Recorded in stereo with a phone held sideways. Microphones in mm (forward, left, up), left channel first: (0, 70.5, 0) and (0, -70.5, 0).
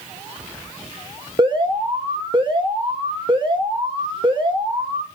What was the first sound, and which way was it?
An alarm, 35° right (ahead or behind).